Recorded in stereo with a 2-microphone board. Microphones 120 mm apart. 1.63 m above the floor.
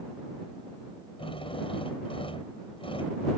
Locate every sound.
1.2 s a drill: 45° left (ahead or behind)